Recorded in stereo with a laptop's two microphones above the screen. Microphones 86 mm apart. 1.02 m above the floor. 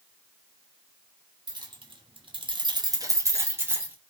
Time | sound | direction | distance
1.5 | keys jangling | 60° right (ahead or behind) | 0.8 m